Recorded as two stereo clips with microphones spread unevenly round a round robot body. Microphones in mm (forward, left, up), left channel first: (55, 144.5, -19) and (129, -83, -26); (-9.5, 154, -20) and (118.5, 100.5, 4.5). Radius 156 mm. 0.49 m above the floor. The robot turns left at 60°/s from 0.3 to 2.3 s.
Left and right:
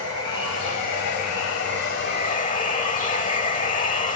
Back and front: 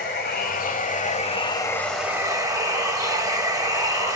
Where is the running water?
170° left, 0.8 m; by 4.2 s 50° left, 0.8 m.